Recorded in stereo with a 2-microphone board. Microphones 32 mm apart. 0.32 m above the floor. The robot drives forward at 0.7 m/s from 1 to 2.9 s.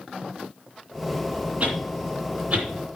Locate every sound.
1.6 s a whoosh: 40° right (ahead or behind), 2.5 m; by 3.0 s 30° right (ahead or behind), 3 m